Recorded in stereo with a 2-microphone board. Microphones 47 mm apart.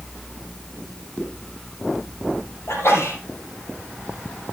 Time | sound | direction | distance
1.2 | a zipper | 40° right (ahead or behind) | 5.5 m
2.7 | a sneeze | 70° left (ahead or behind) | 5 m